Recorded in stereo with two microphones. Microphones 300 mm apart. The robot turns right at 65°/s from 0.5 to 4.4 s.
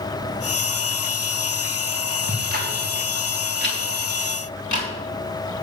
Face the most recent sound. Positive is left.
turn(degrees=70)  # may be behind; listen again after turning